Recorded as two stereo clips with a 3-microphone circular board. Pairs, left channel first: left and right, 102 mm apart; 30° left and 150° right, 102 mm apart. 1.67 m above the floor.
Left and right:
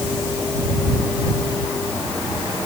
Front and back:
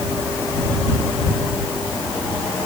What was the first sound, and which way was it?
Only background noise.